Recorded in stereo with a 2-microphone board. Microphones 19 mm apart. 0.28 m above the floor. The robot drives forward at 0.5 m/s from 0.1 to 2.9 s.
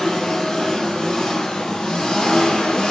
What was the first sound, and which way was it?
An engine running, 40° left (ahead or behind).